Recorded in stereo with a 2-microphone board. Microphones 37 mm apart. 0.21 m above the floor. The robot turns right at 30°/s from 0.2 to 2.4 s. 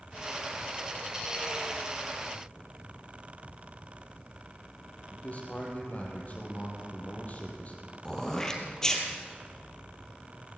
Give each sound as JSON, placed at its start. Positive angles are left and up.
{"t": 5.1, "sound": "a man speaking", "side_deg": 45, "distance_m": 5.0}
{"t": 8.1, "sound": "throat clearing", "side_deg": 20, "distance_m": 3.0}